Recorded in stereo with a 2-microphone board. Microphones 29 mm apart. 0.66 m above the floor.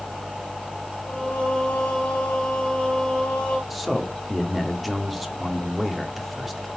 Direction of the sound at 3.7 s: Centre (ahead or behind).